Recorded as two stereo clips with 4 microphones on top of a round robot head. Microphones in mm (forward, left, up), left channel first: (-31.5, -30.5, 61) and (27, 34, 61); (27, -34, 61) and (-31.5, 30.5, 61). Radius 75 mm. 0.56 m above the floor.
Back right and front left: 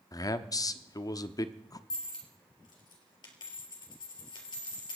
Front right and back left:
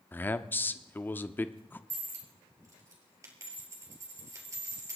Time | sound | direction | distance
0.1 | a man speaking | 110° right | 1.0 m
1.9 | a dropped coin | 170° right | 4 m